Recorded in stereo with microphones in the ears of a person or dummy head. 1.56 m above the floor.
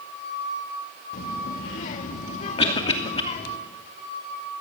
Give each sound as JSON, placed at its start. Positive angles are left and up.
{"t": 1.1, "sound": "a child speaking", "side_deg": 50, "distance_m": 1.9}
{"t": 2.6, "sound": "a cough", "side_deg": 30, "distance_m": 2.5}